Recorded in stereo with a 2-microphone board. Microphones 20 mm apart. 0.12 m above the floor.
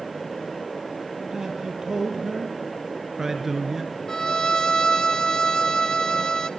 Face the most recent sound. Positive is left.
turn(degrees=40)  # may be behind; listen again after turning